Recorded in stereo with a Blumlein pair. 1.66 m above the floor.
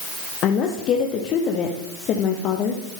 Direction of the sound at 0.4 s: 35° left.